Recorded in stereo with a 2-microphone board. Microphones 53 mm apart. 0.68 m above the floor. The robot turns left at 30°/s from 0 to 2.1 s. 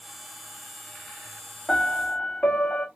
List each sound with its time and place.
1.7 s a piano: 15° left (ahead or behind), 1.5 m; by 2.9 s 25° left (ahead or behind), 1.5 m